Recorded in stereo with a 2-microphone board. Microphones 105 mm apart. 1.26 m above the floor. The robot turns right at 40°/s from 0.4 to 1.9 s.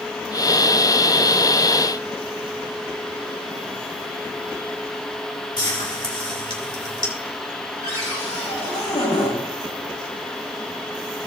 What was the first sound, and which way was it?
Frying, 55° left (ahead or behind).